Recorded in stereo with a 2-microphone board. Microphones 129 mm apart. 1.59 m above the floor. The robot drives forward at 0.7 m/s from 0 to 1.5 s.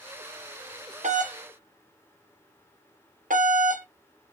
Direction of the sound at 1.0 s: 65° right (ahead or behind).